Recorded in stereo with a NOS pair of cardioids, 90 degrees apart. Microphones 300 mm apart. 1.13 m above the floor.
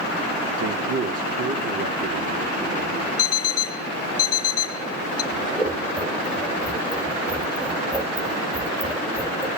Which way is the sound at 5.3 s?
10° right.